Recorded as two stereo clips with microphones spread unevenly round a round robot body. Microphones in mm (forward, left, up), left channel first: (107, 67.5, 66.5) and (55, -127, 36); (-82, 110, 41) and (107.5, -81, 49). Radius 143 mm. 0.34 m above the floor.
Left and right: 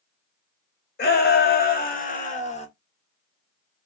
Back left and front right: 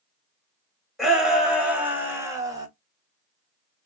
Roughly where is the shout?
Ahead left.